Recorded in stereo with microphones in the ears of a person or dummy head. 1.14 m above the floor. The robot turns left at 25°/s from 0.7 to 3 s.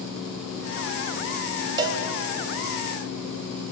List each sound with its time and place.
1.8 s a cowbell: 25° right (ahead or behind), 0.8 m; by 2.0 s 30° right (ahead or behind), 0.8 m